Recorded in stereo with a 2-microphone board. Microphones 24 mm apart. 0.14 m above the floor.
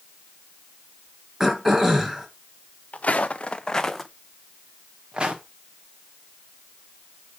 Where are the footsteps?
70° left (ahead or behind), 1.0 m; by 5.4 s 40° right (ahead or behind), 1.5 m.